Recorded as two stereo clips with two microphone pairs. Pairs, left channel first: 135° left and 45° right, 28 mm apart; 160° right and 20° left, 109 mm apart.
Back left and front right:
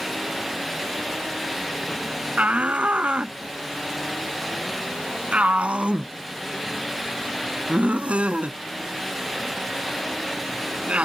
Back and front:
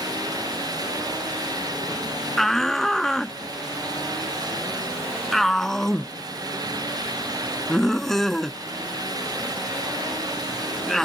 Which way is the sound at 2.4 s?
75° right.